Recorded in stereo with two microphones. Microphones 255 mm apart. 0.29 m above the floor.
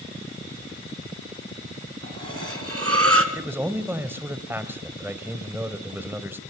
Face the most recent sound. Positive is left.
turn(degrees=-10)  # may be behind; listen again after turning